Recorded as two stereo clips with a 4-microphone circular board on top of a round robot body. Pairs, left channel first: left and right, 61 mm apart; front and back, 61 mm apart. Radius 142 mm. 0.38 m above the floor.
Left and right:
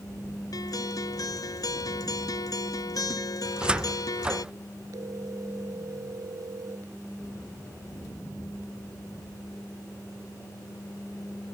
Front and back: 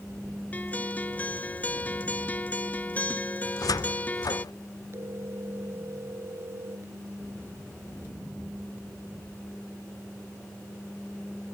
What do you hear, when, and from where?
0.5 s a guitar: 65° left
3.5 s a cupboard door: 15° right
4.9 s a phone ringing: 130° right